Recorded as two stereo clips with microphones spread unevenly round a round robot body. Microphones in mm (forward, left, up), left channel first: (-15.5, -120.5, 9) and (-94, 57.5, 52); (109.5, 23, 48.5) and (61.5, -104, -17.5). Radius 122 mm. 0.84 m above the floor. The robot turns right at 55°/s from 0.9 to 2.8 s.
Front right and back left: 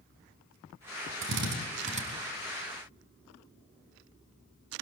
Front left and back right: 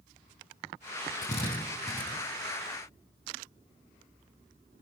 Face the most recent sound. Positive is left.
turn(degrees=-150)